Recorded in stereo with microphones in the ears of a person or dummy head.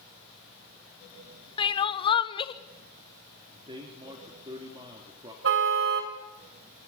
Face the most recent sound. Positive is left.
turn(degrees=-70)  # may be behind; listen again after turning